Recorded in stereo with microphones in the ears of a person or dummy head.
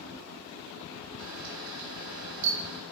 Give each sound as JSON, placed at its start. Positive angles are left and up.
{"t": 1.2, "sound": "a camera shutter", "side_deg": -55, "distance_m": 1.0}